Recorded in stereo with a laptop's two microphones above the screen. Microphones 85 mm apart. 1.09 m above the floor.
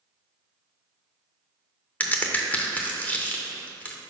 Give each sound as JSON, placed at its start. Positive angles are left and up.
{"t": 2.0, "sound": "a crack", "side_deg": 20, "distance_m": 0.8}